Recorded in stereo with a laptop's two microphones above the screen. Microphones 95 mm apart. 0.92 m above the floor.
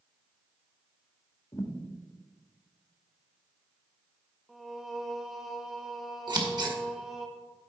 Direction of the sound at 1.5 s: 30° left (ahead or behind).